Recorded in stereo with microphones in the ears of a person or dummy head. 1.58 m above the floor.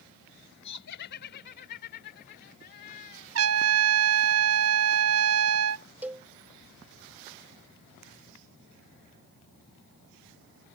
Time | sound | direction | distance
0.6 | laughter | 60° left (ahead or behind) | ?
3.4 | a trumpet | 80° right | ?
6.0 | a cowbell | 5° right (ahead or behind) | ?